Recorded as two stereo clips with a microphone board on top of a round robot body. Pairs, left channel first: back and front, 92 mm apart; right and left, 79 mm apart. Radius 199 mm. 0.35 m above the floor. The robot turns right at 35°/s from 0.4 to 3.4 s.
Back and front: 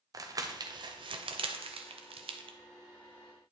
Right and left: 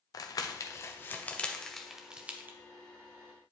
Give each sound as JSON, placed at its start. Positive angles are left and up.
{"t": 0.1, "sound": "crumpling", "azimuth_deg": -50, "distance_m": 0.5}